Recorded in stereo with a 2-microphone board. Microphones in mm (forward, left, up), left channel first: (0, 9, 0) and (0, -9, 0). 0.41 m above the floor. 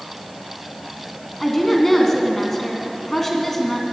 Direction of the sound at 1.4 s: 10° left (ahead or behind).